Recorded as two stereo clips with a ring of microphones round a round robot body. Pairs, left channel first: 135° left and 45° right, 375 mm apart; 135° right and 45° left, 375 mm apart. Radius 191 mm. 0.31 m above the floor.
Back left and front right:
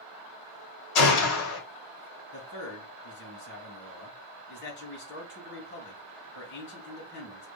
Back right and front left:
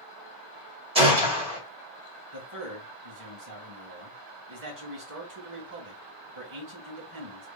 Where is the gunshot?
115° left, 2.5 m.